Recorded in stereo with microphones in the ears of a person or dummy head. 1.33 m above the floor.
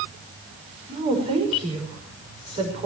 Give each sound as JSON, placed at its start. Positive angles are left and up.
{"t": 0.9, "sound": "a woman speaking", "side_deg": -30, "distance_m": 6.0}